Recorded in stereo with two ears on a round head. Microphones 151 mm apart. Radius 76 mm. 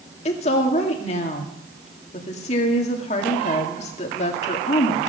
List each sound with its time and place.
0.2 s a woman speaking: 40° left (ahead or behind), 2 m